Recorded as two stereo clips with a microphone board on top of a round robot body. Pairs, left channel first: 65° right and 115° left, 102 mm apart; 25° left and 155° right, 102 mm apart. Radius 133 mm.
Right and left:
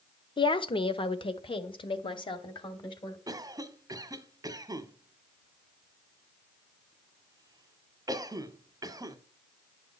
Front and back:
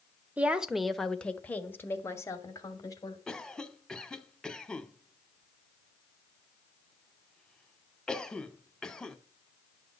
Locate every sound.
0.4 s a woman speaking: 85° right, 1.3 m; by 3.2 s 30° right, 2.5 m
3.3 s a cough: 100° left, 1.6 m